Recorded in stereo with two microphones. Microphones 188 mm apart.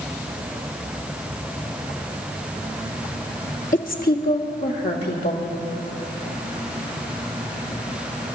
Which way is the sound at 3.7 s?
45° left (ahead or behind).